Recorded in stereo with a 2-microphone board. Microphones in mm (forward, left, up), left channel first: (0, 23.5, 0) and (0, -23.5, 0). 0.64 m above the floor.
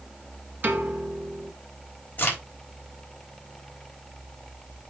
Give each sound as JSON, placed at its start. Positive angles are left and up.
{"t": 0.6, "sound": "a piano", "side_deg": -45, "distance_m": 2.5}
{"t": 2.2, "sound": "a crack", "side_deg": 35, "distance_m": 3.5}